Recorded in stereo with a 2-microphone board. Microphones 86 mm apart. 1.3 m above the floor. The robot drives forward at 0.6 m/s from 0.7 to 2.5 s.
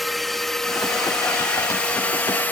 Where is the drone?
Centre (ahead or behind); by 2.5 s 20° left (ahead or behind).